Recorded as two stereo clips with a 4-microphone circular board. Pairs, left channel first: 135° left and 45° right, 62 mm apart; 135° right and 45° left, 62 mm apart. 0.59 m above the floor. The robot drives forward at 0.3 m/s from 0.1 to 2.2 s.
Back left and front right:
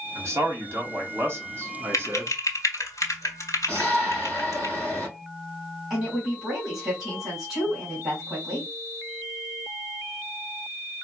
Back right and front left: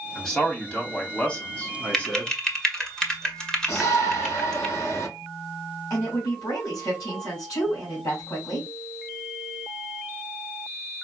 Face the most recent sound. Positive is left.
turn(degrees=-130)